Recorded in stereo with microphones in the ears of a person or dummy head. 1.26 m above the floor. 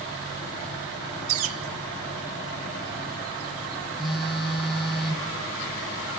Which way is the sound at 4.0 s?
Centre (ahead or behind).